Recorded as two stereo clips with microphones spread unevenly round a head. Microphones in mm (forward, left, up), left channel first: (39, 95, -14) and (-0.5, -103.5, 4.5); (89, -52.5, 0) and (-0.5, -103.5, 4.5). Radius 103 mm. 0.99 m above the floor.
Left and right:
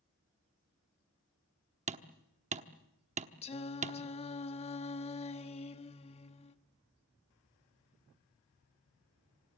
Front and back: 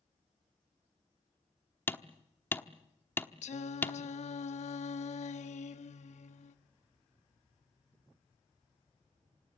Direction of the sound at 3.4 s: 15° left.